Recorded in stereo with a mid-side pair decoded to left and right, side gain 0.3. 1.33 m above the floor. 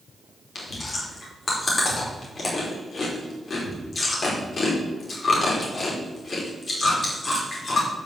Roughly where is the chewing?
Ahead left.